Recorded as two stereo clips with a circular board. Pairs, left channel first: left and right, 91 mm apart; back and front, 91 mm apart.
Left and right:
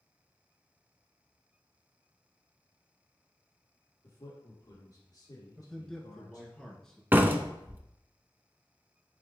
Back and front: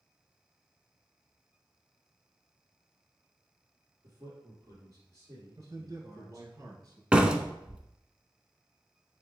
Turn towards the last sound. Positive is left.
turn(degrees=-65)